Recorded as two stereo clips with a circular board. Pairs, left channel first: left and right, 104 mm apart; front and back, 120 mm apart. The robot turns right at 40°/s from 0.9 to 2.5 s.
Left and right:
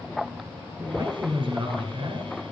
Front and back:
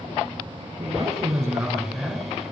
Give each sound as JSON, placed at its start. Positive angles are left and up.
{"t": 0.8, "sound": "a man speaking", "azimuth_deg": -140, "distance_m": 3.0}